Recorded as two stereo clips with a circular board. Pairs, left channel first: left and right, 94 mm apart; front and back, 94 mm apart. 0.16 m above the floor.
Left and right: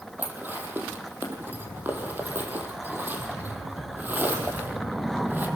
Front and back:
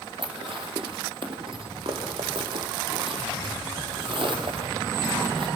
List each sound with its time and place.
0.2 s dishes clattering: 160° right, 3.5 m